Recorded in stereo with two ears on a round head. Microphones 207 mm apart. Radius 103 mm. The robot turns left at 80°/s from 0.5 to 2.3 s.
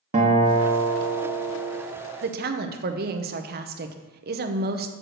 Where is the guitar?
35° right, 1.2 m; by 1.8 s 140° right, 1.2 m.